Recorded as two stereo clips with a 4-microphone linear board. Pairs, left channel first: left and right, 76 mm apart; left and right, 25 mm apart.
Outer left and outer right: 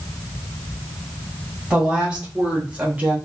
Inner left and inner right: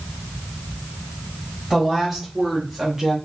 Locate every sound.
1.7 s a woman speaking: 15° right (ahead or behind), 1.7 m; by 3.2 s 20° right (ahead or behind), 0.8 m